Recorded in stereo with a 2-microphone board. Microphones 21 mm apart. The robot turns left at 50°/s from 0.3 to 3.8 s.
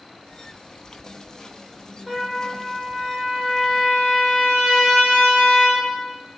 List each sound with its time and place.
2.1 s a trumpet: 10° left, 5.5 m; by 5.9 s 80° right, 5.5 m